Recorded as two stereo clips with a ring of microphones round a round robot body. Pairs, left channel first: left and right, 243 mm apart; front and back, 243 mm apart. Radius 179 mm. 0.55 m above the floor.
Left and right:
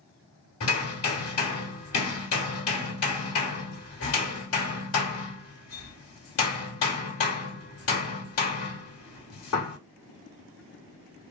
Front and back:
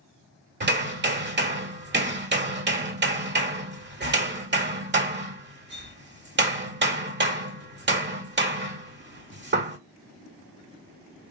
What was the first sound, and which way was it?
Hammering, 130° left.